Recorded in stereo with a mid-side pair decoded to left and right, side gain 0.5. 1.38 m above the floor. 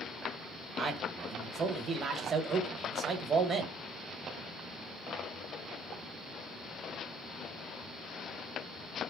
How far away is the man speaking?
About 1.3 m.